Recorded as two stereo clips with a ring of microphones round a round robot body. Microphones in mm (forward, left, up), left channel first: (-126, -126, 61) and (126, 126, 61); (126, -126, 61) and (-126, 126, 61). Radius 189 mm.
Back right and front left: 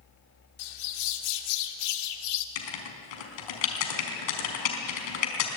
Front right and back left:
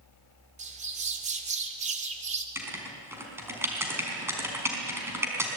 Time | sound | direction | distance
0.6 | a bird | 155° right | 1.9 m
2.5 | writing | 140° right | 4.5 m